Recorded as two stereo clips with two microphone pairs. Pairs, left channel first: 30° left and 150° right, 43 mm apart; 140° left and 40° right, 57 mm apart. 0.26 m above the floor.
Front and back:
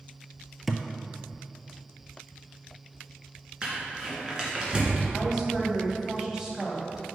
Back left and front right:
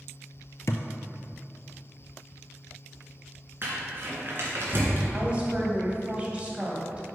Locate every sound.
0.7 s a thud: 120° left, 0.6 m
3.6 s crumpling: 85° right, 2.5 m
5.1 s a woman speaking: 90° right, 1.7 m